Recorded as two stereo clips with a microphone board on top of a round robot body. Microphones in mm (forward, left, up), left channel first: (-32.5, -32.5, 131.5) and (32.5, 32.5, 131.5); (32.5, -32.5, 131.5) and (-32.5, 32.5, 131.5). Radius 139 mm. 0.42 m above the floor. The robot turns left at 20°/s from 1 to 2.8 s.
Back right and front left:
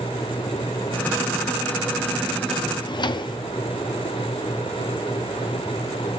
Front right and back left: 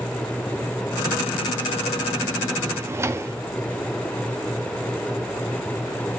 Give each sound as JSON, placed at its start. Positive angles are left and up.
{"t": 2.7, "sound": "a drawer", "azimuth_deg": -165, "distance_m": 0.6}